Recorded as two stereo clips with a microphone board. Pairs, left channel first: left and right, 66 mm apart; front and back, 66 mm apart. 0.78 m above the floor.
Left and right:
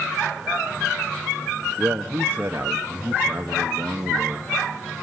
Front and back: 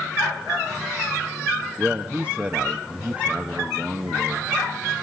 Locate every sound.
1.8 s a man speaking: 125° right, 1.0 m